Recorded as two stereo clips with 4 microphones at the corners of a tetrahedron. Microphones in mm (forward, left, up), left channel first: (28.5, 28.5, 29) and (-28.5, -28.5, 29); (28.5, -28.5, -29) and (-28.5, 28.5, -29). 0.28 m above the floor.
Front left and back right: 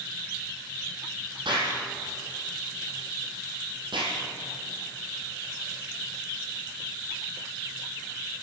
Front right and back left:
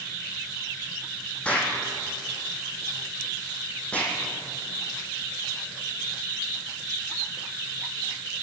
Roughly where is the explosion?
Behind right.